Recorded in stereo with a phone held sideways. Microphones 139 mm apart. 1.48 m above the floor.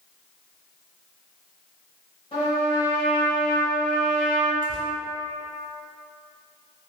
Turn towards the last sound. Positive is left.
turn(degrees=-80)